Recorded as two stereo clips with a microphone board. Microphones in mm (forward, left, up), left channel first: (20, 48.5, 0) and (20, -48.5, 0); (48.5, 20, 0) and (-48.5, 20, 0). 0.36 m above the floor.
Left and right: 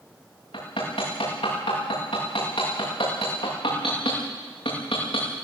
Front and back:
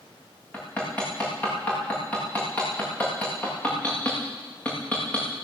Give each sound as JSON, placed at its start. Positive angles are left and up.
{"t": 0.5, "sound": "hammering", "azimuth_deg": 75, "distance_m": 9.0}